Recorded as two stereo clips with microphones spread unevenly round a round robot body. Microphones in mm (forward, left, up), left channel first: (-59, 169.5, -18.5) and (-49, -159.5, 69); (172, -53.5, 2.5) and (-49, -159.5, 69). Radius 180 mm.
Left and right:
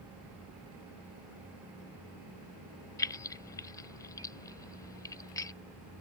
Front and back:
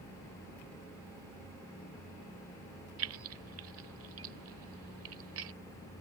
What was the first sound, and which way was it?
Keys jangling, 160° left.